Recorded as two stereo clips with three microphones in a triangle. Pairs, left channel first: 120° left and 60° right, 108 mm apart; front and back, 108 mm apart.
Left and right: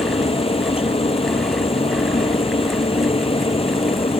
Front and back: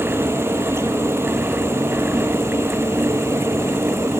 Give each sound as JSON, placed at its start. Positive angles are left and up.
{"t": 0.0, "sound": "a helicopter", "azimuth_deg": 115}